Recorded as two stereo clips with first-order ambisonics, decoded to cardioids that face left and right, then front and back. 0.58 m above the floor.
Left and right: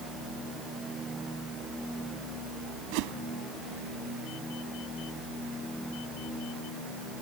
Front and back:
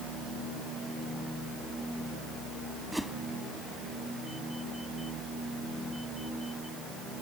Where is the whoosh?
90° right.